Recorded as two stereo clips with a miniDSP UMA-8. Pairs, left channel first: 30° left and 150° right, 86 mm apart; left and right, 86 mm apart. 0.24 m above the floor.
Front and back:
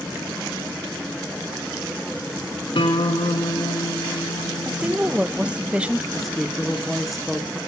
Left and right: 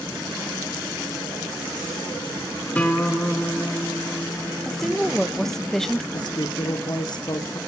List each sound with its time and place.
2.8 s a guitar: 15° left, 5 m
4.7 s a woman speaking: 165° left, 0.9 m
6.1 s a woman speaking: 120° left, 3 m